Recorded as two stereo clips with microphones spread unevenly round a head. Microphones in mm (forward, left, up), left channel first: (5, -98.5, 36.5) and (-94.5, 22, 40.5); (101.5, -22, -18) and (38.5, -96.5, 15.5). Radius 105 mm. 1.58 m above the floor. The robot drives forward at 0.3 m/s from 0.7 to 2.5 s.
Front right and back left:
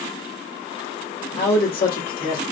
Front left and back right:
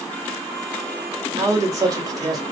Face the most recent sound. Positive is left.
turn(degrees=-85)